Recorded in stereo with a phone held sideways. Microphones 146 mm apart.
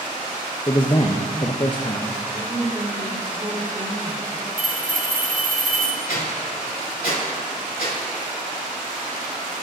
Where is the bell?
70° right (ahead or behind), 1.0 m.